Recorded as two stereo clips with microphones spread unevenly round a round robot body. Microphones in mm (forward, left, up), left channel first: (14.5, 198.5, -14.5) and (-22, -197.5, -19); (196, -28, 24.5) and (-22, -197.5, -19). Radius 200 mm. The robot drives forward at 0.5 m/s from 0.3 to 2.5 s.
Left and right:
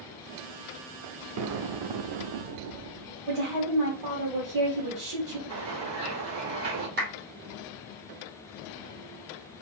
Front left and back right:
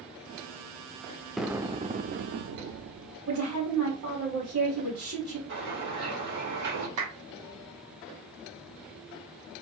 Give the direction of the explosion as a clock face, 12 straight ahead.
2 o'clock.